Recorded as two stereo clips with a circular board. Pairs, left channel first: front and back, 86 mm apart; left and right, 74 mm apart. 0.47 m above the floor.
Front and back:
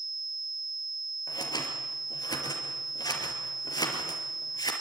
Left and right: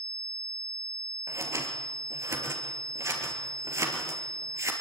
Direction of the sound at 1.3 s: 40° right.